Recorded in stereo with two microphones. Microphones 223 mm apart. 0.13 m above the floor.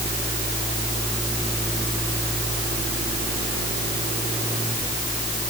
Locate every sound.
Only background noise.